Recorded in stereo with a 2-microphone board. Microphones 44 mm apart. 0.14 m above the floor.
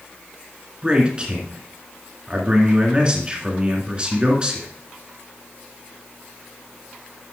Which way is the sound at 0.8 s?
25° right (ahead or behind).